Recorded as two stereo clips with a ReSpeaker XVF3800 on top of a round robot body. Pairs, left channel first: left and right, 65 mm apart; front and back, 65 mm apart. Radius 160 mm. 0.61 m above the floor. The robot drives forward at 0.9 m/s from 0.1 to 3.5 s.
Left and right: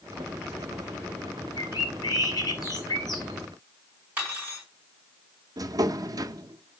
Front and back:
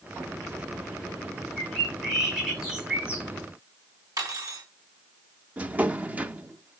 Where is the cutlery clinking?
160° right, 3 m.